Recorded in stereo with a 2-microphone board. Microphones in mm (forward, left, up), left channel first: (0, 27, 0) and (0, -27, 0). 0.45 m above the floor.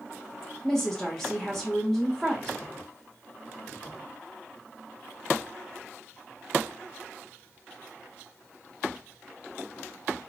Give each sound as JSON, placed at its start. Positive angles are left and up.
{"t": 0.6, "sound": "a woman speaking", "side_deg": 10, "distance_m": 1.7}